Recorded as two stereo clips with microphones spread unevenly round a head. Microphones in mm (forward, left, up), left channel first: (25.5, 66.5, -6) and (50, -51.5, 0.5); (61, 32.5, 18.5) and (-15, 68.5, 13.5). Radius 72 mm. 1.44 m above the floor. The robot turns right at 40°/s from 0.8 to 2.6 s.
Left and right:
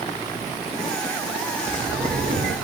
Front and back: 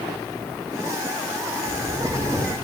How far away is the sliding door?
About 4 m.